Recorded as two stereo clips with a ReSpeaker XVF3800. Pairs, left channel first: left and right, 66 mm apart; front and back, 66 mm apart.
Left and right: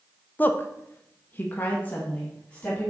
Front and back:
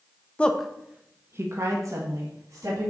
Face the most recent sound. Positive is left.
turn(degrees=160)